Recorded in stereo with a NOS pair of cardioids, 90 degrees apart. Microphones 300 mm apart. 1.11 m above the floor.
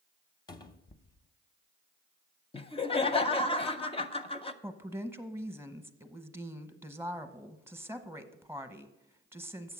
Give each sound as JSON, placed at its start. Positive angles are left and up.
{"t": 0.5, "sound": "a cupboard door", "azimuth_deg": 15, "distance_m": 0.7}
{"t": 2.5, "sound": "laughter", "azimuth_deg": 20, "distance_m": 0.6}
{"t": 4.6, "sound": "a woman speaking", "azimuth_deg": -10, "distance_m": 0.9}